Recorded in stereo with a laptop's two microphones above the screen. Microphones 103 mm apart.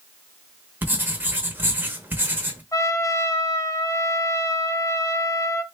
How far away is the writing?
About 0.8 m.